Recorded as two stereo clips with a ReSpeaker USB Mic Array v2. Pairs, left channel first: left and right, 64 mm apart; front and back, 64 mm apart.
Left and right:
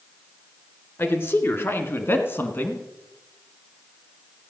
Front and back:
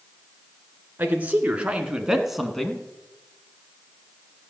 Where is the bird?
No bird in this recording.